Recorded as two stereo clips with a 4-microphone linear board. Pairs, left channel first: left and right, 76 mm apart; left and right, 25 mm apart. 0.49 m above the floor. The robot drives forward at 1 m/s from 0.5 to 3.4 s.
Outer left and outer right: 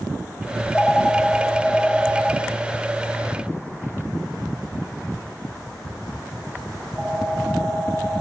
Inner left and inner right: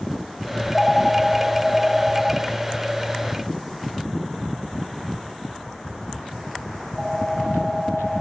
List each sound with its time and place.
0.6 s a phone ringing: 20° left (ahead or behind), 0.6 m; by 8.2 s 5° left (ahead or behind), 3 m